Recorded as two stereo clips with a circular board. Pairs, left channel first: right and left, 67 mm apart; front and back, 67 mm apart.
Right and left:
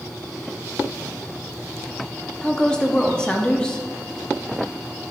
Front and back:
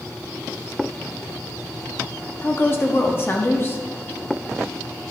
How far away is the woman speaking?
About 1.0 m.